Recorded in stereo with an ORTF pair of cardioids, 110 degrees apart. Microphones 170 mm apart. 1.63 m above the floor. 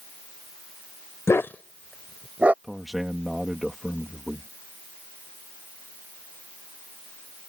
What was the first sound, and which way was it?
A dog barking, 15° left.